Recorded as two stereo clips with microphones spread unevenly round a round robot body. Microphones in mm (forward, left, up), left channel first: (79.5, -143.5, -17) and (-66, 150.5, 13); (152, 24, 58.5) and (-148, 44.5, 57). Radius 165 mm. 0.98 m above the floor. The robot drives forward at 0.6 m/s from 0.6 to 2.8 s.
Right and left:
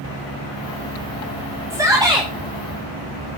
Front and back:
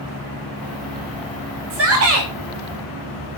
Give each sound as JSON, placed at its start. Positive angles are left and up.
{"t": 1.7, "sound": "a shout", "azimuth_deg": -160, "distance_m": 1.2}